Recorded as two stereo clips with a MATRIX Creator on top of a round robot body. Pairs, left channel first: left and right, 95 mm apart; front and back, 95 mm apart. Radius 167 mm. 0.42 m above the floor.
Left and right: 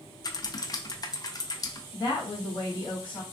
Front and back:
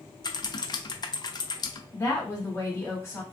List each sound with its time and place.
0.2 s typing on a keyboard: 45° left, 0.5 m
1.9 s a woman speaking: 70° left, 1.5 m